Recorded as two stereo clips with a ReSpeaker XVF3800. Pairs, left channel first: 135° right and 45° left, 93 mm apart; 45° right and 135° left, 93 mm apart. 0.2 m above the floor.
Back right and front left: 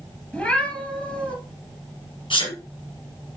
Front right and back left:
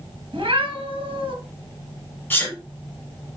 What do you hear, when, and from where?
0.3 s a cat meowing: 150° left, 1.7 m
2.3 s a sneeze: 115° right, 5 m